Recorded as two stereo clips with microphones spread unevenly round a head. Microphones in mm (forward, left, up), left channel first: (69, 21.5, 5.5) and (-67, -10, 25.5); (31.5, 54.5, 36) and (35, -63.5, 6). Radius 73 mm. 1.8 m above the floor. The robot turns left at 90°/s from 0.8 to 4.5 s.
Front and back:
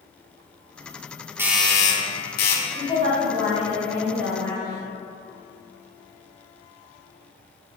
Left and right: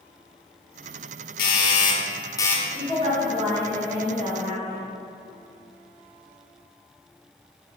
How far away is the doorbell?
About 0.6 m.